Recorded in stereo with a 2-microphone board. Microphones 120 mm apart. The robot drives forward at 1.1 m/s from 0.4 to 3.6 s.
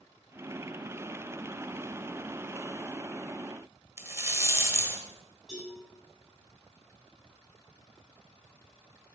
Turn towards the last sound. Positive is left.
turn(degrees=-5)  # may be behind; listen again after turning